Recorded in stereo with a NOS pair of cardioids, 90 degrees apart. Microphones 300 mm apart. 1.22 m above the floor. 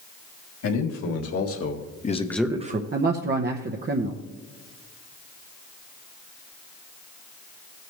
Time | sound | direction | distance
0.6 | a man speaking | 65° left | 3 m
2.9 | a man speaking | 35° right | 1.0 m